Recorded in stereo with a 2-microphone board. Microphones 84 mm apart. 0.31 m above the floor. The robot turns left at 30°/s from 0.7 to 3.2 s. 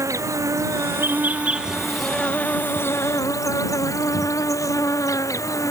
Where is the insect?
145° right; by 5.7 s 140° left.